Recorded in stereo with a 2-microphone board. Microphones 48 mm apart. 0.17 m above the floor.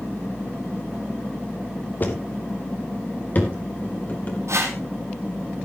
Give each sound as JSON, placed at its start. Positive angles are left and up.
{"t": 2.0, "sound": "footsteps", "side_deg": 40, "distance_m": 2.5}
{"t": 4.5, "sound": "a whoosh", "side_deg": -75, "distance_m": 3.0}